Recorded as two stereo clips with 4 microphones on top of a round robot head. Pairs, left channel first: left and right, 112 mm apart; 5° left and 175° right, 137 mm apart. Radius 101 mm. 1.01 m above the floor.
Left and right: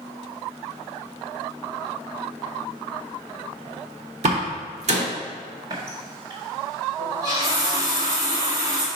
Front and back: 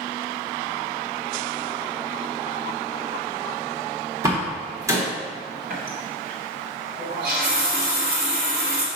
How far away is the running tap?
About 1.2 m.